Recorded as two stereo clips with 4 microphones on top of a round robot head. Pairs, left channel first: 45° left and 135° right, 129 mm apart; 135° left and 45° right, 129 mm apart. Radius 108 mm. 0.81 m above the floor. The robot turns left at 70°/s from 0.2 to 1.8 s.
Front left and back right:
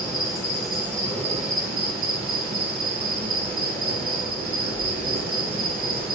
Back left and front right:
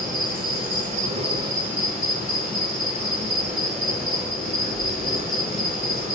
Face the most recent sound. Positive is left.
turn(degrees=-125)